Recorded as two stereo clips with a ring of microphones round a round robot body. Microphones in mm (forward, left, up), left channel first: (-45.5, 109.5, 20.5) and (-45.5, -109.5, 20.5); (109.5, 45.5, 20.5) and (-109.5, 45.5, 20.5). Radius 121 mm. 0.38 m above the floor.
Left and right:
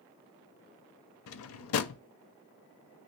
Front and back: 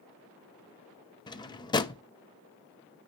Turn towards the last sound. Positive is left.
turn(degrees=70)